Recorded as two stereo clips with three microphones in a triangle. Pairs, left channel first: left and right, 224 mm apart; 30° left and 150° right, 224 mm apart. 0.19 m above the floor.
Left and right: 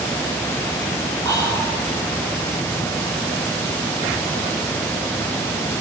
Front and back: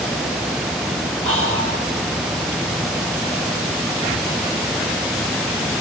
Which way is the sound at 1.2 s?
15° left.